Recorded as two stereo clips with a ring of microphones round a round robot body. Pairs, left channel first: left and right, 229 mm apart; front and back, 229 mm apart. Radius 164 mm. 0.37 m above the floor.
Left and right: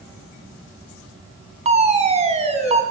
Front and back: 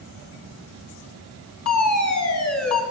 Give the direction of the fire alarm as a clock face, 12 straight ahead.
1 o'clock.